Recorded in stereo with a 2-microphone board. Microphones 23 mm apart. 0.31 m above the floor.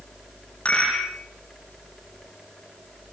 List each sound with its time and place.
0.7 s a rattle: 85° left, 9 m